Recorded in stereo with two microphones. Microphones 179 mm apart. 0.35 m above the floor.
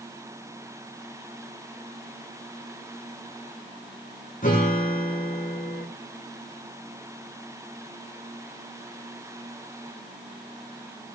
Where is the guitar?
50° left (ahead or behind), 10 m.